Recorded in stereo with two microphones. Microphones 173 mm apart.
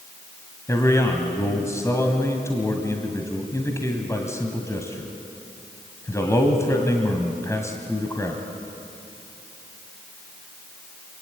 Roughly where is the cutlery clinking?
I don't hear cutlery clinking.